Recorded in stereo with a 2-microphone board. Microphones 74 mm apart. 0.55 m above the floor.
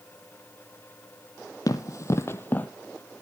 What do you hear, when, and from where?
1.7 s running footsteps: 50° left (ahead or behind), 1.0 m; by 2.7 s 20° left (ahead or behind), 0.8 m